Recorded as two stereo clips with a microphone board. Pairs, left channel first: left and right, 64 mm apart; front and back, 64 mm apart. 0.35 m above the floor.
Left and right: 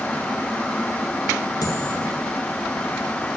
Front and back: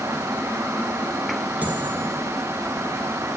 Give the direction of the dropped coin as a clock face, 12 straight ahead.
8 o'clock.